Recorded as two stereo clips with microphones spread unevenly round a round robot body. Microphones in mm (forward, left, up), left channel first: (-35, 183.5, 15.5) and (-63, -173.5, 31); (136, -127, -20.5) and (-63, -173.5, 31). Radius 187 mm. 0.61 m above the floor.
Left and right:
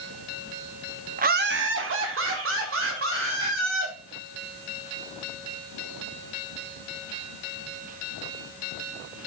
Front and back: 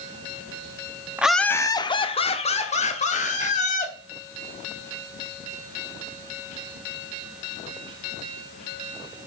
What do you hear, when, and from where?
1.2 s laughter: 60° right, 0.9 m; by 3.9 s 35° right, 4 m